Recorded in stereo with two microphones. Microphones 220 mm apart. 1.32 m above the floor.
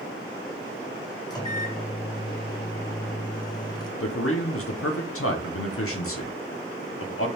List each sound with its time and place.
1.3 s a microwave: 20° left (ahead or behind), 0.6 m
4.0 s a man speaking: 80° left, 0.6 m